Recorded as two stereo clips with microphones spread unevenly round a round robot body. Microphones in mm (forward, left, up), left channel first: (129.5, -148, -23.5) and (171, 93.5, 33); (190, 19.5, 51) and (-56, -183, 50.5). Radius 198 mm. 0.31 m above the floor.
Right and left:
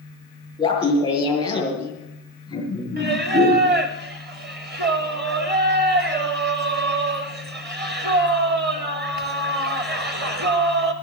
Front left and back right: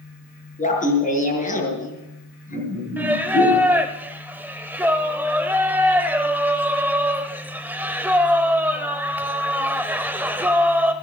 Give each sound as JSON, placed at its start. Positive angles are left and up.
{"t": 0.6, "sound": "laughter", "azimuth_deg": -25, "distance_m": 7.0}
{"t": 3.0, "sound": "singing", "azimuth_deg": 135, "distance_m": 0.6}